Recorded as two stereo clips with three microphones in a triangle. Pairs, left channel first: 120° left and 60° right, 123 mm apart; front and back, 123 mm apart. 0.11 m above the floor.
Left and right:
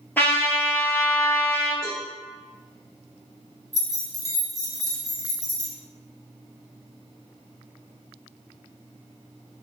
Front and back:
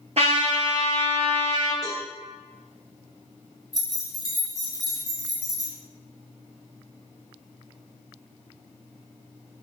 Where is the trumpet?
170° right, 0.6 m.